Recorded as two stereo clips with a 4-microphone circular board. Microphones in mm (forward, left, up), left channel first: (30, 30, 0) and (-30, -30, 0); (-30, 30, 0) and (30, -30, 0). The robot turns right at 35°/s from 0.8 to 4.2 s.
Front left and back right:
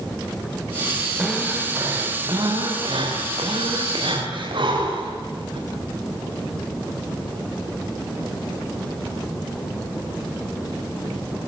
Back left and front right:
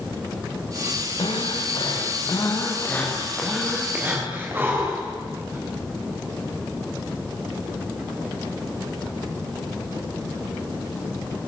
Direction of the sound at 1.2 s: 145° left.